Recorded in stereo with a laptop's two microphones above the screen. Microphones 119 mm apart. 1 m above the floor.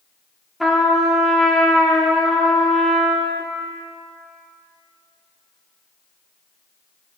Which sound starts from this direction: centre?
A trumpet, at 0.6 s.